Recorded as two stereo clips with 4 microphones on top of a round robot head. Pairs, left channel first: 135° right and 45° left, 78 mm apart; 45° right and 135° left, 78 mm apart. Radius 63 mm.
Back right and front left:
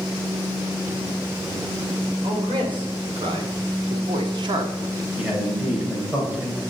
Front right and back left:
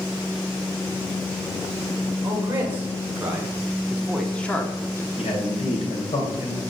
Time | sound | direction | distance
2.2 | a man speaking | 75° left | 2.5 m
5.2 | a man speaking | 35° right | 4 m